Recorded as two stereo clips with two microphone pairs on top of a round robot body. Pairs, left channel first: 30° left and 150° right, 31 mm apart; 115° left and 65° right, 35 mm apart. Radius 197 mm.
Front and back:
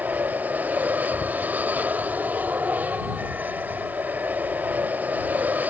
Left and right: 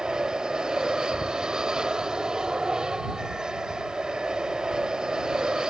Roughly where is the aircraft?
Behind right.